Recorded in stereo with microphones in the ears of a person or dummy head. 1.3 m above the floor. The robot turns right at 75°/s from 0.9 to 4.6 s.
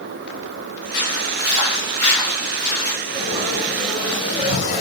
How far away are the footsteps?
About 5 m.